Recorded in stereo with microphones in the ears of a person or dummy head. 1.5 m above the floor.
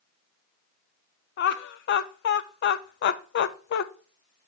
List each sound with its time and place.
1.4 s laughter: 55° left (ahead or behind), 0.6 m